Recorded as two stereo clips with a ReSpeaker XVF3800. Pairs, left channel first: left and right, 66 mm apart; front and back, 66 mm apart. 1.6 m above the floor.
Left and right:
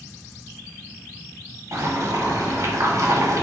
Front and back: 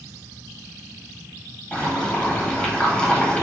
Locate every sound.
1.7 s boiling: 75° right, 1.0 m